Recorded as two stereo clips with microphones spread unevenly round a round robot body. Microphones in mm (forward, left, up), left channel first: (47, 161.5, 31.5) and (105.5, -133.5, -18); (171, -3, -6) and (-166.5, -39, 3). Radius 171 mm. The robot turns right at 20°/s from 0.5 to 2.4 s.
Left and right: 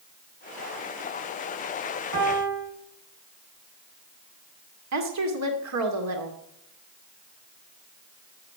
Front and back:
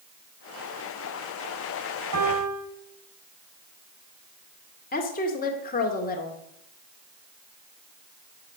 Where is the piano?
130° right, 5.5 m; by 2.6 s 125° right, 5.5 m.